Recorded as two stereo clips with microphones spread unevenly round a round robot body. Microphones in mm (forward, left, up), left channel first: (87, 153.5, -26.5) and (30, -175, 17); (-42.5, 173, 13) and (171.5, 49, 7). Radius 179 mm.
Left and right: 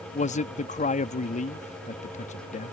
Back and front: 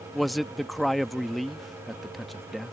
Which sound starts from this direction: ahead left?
A man speaking, at 0.1 s.